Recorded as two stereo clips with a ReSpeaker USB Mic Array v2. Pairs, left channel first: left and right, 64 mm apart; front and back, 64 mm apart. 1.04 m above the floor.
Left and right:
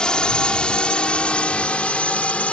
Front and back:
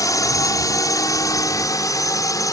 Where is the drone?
15° left; by 2.5 s 20° left.